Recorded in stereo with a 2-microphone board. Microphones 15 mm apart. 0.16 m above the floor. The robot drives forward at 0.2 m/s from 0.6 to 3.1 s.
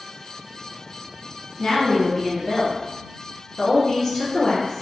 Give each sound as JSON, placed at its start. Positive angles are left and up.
{"t": 1.6, "sound": "a woman speaking", "side_deg": 35, "distance_m": 1.2}